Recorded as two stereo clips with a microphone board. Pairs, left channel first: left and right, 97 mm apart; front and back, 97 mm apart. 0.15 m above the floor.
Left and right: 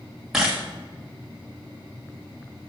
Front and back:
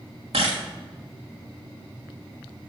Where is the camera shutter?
175° right, 3 m.